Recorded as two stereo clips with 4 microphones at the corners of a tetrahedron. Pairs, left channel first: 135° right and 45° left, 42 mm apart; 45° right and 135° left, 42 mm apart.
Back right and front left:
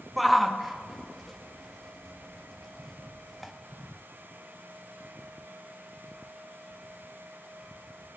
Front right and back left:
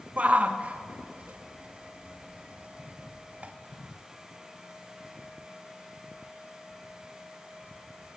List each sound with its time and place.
0.2 s a shout: 130° left, 0.5 m